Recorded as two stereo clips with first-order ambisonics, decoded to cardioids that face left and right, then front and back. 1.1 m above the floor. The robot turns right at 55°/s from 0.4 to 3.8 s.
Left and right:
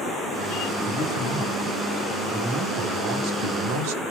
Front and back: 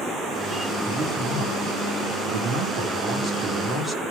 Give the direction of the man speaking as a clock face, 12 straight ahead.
8 o'clock.